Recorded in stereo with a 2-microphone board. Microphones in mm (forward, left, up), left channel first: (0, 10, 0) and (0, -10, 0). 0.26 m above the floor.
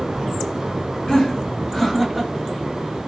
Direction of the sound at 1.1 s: 45° left (ahead or behind).